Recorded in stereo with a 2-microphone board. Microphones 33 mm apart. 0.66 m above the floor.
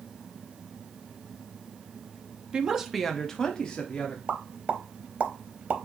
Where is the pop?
45° right (ahead or behind), 0.6 m.